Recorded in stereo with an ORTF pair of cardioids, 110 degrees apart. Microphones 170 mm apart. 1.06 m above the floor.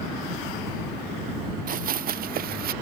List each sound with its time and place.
1.7 s running footsteps: 50° right; by 2.7 s 55° right